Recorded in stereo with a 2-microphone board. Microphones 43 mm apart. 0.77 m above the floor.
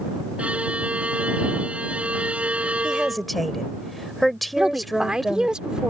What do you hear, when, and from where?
0.4 s a violin: 30° right (ahead or behind)
2.8 s a woman speaking: centre (ahead or behind)
4.6 s a woman speaking: 15° right (ahead or behind)